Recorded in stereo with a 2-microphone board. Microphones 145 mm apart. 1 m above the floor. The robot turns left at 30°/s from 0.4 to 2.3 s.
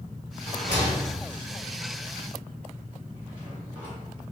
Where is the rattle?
40° left (ahead or behind), 1.9 m; by 4.3 s 10° right (ahead or behind), 1.9 m.